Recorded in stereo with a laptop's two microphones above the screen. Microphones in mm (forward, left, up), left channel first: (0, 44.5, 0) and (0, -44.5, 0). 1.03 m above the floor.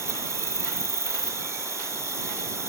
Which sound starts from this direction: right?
An insect, at 0.0 s.